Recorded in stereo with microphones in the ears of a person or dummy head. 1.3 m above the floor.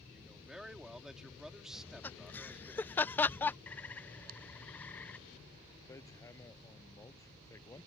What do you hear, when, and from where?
0.1 s a man speaking: 5° right (ahead or behind)
1.7 s laughter: 15° left (ahead or behind)
3.7 s a bird: 10° left (ahead or behind)
5.9 s hammering: 15° left (ahead or behind)